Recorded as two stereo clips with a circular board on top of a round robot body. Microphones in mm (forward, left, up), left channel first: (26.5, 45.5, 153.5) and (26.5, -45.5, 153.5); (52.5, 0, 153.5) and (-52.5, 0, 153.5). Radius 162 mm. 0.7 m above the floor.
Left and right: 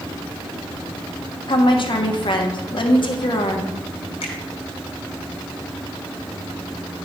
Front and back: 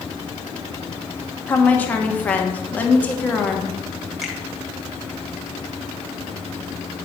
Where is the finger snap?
95° left, 2 m.